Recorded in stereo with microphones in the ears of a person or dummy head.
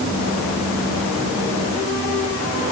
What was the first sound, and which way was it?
Only background noise.